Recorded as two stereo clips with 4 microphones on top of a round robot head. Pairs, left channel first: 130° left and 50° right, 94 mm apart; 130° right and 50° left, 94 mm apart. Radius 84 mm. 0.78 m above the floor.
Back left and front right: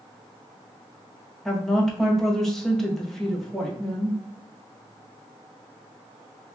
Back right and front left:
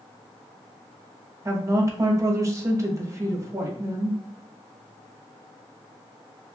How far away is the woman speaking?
About 1.0 m.